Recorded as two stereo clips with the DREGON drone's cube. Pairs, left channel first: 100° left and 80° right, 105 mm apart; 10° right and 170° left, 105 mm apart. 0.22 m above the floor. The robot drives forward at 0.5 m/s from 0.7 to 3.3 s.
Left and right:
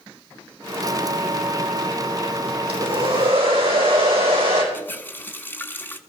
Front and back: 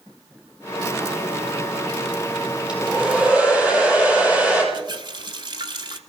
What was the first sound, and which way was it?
A hair dryer, 115° right.